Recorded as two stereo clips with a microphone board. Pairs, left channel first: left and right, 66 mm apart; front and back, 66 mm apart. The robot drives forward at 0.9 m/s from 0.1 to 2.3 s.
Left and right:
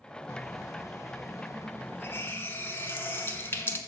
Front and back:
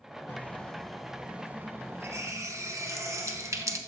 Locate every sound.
0.3 s a running tap: 55° left, 1.3 m; by 3.8 s 145° left, 1.7 m